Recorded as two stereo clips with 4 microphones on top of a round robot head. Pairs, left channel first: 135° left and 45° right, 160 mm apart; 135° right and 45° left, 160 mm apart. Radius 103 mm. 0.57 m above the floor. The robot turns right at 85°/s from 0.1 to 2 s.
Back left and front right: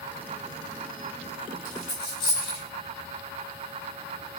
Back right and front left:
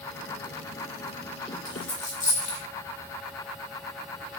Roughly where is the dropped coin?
Behind.